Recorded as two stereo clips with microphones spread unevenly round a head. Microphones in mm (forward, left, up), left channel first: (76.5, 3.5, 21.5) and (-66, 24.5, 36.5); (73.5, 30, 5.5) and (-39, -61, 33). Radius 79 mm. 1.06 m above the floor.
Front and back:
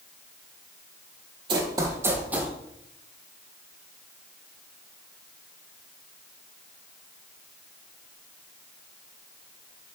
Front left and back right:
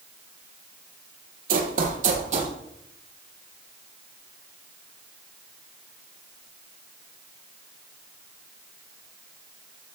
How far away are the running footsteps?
About 2 m.